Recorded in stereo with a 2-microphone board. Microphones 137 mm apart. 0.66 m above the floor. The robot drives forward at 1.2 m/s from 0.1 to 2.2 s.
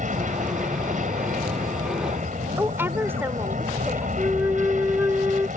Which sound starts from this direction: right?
An aircraft, at 0.0 s.